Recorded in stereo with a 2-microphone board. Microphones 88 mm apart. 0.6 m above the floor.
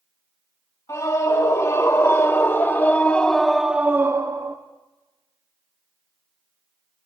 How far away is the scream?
About 2.5 m.